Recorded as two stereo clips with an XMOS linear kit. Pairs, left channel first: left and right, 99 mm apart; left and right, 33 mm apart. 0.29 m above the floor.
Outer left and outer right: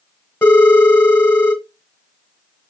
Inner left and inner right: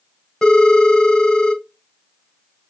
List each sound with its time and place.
0.4 s a phone ringing: 25° left (ahead or behind), 1.0 m